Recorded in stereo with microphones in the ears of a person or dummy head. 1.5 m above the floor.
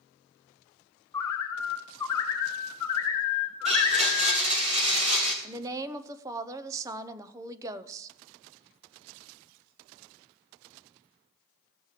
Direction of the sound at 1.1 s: 15° left (ahead or behind).